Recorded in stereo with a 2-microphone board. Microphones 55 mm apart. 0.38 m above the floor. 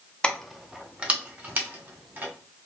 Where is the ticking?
I don't hear ticking.